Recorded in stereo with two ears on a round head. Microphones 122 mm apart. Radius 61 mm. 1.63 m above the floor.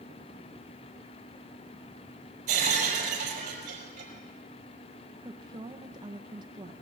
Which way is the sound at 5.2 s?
30° right (ahead or behind).